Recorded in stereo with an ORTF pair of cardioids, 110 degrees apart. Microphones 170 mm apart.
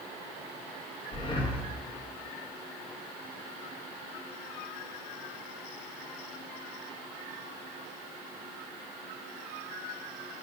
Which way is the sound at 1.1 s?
30° left.